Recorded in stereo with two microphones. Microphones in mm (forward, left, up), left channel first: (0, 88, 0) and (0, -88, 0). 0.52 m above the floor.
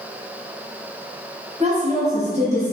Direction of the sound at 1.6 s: 35° right (ahead or behind).